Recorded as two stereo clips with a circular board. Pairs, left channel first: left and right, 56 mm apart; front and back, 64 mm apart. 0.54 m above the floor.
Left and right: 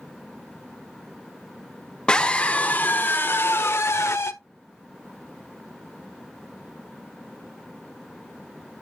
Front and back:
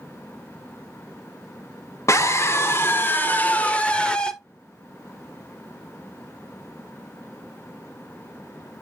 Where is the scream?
20° left, 1.4 m; by 4.3 s 75° left, 1.7 m.